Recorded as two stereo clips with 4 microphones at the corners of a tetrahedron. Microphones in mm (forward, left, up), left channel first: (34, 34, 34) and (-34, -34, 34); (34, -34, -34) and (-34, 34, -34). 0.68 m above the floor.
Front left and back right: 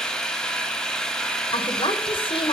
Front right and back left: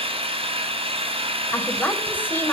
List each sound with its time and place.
0.0 s an engine running: 125° left, 3 m
1.5 s a woman speaking: 25° left, 3 m